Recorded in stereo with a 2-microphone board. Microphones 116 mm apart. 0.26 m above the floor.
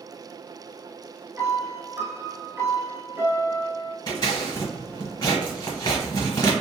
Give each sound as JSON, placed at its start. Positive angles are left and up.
{"t": 1.4, "sound": "a piano", "side_deg": -20, "distance_m": 0.6}
{"t": 4.1, "sound": "scissors", "side_deg": 35, "distance_m": 1.0}